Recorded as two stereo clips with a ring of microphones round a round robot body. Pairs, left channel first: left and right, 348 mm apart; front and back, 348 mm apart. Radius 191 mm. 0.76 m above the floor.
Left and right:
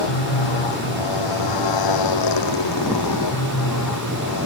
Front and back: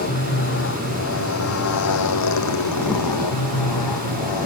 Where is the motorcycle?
65° left; by 4.5 s 35° left.